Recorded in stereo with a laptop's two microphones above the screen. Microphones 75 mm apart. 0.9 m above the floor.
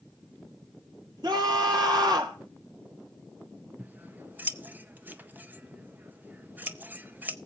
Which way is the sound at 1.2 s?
65° right (ahead or behind).